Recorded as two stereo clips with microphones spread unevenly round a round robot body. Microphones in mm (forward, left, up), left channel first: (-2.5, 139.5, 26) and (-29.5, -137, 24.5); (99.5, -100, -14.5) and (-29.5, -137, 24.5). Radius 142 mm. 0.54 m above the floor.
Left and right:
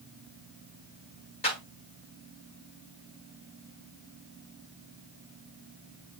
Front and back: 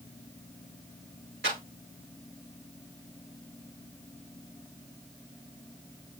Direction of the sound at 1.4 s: 155° left.